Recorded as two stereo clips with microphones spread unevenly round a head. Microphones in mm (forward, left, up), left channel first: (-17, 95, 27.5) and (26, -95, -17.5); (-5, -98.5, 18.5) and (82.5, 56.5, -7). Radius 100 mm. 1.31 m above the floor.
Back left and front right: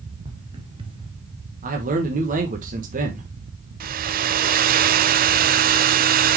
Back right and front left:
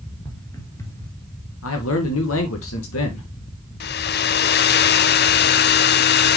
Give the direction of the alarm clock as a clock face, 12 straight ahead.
No alarm clock in this recording.